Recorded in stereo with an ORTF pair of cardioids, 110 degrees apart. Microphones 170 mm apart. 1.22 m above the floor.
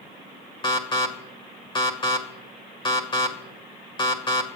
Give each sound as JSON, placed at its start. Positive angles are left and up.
{"t": 0.6, "sound": "an alarm", "azimuth_deg": 30, "distance_m": 2.0}